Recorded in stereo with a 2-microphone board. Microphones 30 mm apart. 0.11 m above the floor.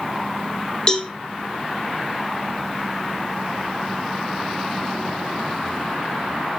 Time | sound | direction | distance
0.9 | a cowbell | 25° left (ahead or behind) | 0.8 m